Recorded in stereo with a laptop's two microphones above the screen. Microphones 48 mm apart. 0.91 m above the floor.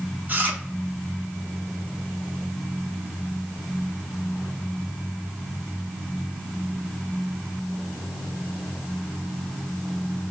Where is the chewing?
30° right (ahead or behind), 0.8 m.